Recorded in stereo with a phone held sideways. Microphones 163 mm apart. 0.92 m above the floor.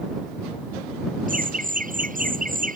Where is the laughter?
55° right (ahead or behind).